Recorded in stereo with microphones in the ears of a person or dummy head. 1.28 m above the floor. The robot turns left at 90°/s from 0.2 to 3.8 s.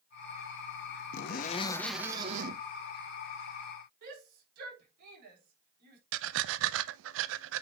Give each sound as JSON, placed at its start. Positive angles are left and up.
{"t": 1.1, "sound": "a zipper", "azimuth_deg": 75, "distance_m": 0.9}
{"t": 4.0, "sound": "a shout", "side_deg": -50, "distance_m": 4.5}
{"t": 6.1, "sound": "breathing", "side_deg": -70, "distance_m": 0.5}